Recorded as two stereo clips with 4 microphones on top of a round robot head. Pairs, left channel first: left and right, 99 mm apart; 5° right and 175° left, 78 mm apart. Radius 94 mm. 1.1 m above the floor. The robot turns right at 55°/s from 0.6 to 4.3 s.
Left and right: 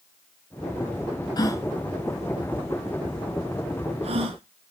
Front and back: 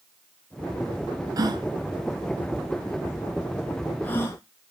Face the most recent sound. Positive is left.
turn(degrees=-60)